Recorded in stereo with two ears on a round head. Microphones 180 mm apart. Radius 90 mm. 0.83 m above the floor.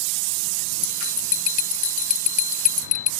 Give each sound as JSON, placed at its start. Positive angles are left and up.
{"t": 0.8, "sound": "a bell", "side_deg": 35}